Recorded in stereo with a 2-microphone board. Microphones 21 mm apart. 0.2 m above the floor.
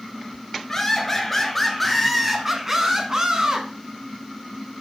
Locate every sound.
0.7 s laughter: 20° left (ahead or behind), 3 m; by 3.7 s 50° right (ahead or behind), 1.8 m